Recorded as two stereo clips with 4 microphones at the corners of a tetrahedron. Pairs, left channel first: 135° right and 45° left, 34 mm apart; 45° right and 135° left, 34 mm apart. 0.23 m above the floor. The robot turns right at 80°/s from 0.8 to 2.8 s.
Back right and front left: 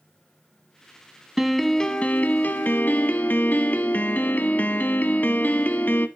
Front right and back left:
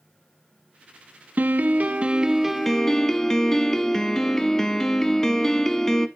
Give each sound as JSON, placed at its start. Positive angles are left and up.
{"t": 1.4, "sound": "a piano", "azimuth_deg": 125, "distance_m": 0.7}